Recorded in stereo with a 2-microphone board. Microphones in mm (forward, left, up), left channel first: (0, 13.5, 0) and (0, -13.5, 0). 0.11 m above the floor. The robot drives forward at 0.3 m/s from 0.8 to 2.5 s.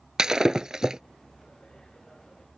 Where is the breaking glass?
25° right (ahead or behind).